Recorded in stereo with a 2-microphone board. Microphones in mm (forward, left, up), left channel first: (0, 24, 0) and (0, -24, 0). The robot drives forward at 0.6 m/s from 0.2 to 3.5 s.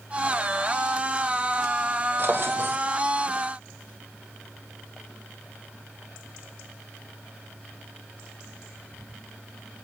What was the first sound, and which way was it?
A drawer, 50° right (ahead or behind).